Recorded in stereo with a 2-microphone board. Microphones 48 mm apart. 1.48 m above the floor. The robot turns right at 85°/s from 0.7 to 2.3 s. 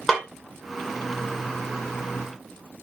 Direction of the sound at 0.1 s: 10° left (ahead or behind).